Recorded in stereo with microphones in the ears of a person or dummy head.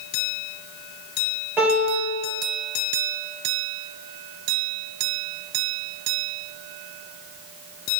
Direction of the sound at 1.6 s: 5° right (ahead or behind).